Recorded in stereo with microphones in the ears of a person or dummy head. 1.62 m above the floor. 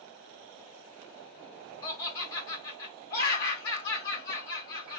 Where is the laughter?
20° left (ahead or behind), 1.1 m.